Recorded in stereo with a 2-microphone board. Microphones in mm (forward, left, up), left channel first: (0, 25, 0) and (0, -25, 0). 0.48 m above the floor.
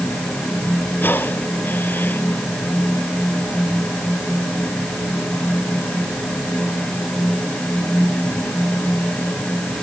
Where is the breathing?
45° left (ahead or behind).